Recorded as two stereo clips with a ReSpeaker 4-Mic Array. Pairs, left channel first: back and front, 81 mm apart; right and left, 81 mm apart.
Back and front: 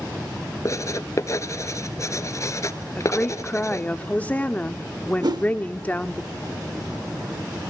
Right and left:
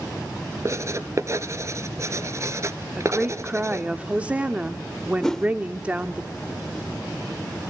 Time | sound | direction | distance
0.7 | writing | 135° left | 1.1 m
3.0 | a woman speaking | 140° left | 0.8 m
5.2 | a whoosh | 5° right | 0.7 m